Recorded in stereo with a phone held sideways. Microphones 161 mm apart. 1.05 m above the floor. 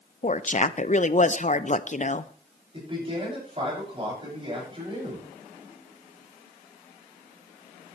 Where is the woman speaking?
50° left (ahead or behind), 0.6 m.